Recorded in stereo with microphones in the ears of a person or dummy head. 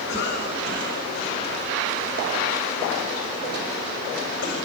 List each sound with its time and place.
0.1 s a cough: 55° left (ahead or behind), 7.5 m